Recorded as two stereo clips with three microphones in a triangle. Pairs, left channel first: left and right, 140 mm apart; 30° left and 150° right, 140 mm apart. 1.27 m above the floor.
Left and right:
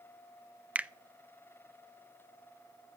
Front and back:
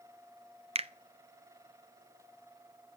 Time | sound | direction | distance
0.8 | a finger snap | 170° right | 0.5 m